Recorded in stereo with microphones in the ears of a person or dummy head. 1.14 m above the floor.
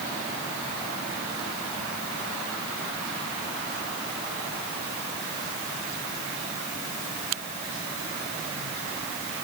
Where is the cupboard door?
No cupboard door in this recording.